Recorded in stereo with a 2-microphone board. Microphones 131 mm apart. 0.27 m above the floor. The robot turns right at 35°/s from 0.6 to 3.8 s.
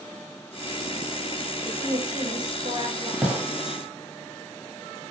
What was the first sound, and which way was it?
A woman speaking, 130° right.